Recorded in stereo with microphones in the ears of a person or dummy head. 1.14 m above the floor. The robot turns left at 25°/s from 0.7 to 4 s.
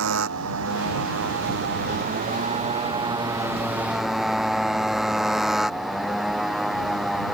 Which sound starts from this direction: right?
A motorcycle, at 0.0 s.